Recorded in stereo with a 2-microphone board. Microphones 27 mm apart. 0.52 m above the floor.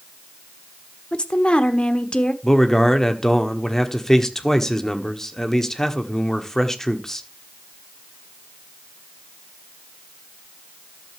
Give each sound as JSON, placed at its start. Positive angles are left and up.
{"t": 1.1, "sound": "a woman speaking", "side_deg": 45, "distance_m": 1.1}
{"t": 2.4, "sound": "a man speaking", "side_deg": 20, "distance_m": 1.3}